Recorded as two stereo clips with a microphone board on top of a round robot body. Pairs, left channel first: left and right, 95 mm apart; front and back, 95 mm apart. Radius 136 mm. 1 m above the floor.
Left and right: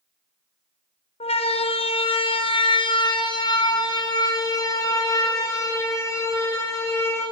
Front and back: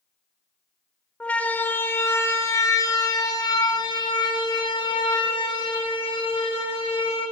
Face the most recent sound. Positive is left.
turn(degrees=30)